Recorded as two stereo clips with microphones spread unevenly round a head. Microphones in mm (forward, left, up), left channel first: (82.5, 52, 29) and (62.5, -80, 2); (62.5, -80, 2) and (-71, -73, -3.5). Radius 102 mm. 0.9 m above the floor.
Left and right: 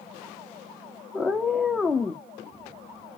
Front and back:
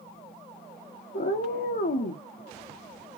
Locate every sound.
1.1 s a cat meowing: 5° right, 0.8 m